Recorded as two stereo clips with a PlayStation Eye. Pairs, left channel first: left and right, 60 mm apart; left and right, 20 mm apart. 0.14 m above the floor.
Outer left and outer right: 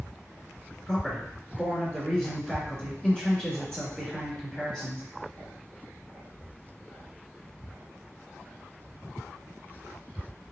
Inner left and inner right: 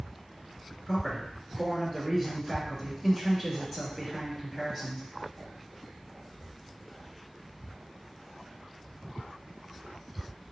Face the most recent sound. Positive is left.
turn(degrees=10)  # may be behind; listen again after turning